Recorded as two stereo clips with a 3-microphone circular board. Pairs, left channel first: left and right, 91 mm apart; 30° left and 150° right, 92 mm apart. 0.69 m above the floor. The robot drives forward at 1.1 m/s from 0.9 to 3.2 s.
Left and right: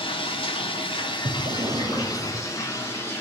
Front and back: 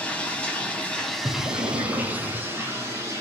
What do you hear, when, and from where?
0.0 s running water: 105° left, 1.6 m; by 3.2 s 155° left, 3.5 m
1.2 s breathing: 80° right, 0.7 m; by 2.4 s 150° right, 1.4 m